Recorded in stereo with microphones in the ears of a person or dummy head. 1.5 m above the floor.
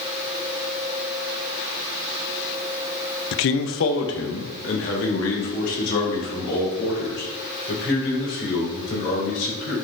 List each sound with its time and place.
3.3 s a man speaking: 65° left (ahead or behind), 0.6 m; by 9.8 s 75° left (ahead or behind), 7 m